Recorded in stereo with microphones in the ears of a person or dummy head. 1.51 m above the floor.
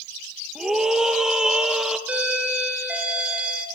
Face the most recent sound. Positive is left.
turn(degrees=-10)  # may be behind; listen again after turning